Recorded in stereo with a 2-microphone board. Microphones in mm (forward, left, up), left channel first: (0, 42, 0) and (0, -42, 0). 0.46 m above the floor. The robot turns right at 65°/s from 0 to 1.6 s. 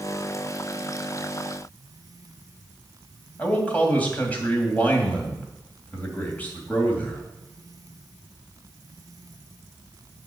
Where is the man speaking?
20° left (ahead or behind), 2.5 m.